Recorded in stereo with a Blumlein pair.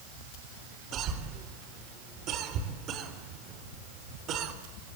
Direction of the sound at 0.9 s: 35° right.